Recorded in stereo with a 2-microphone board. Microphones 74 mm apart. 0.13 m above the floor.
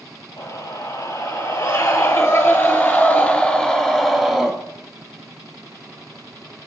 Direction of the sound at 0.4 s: 60° left (ahead or behind).